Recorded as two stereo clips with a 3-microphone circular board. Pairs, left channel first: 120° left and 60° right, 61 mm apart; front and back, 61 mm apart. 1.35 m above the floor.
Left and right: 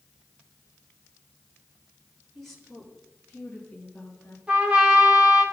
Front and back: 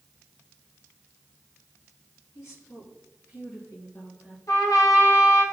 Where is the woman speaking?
30° left, 3 m; by 4.4 s 55° left, 2.5 m.